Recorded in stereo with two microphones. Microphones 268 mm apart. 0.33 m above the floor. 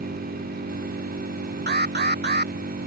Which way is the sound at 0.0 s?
40° right (ahead or behind).